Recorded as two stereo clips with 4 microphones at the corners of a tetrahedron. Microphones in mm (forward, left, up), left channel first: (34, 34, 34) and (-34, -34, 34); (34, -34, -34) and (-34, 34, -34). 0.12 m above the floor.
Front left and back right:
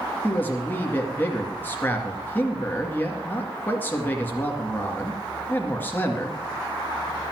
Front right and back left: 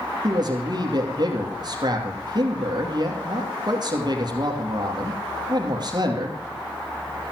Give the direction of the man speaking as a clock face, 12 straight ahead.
8 o'clock.